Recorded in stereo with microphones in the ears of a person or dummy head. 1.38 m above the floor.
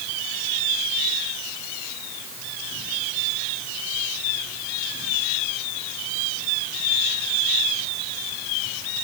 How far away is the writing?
I don't hear writing.